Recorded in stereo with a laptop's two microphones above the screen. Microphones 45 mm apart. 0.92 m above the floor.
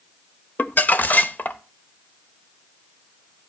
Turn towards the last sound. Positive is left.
turn(degrees=40)  # may be behind; listen again after turning